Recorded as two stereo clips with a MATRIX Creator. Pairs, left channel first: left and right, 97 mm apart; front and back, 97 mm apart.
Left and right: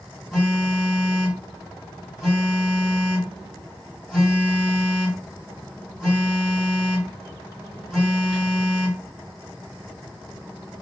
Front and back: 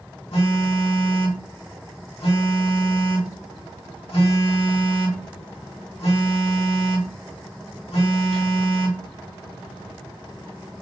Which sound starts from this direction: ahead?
A phone buzzing, at 0.3 s.